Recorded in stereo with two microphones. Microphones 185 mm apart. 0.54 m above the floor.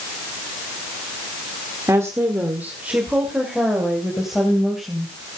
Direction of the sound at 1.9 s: 15° right (ahead or behind).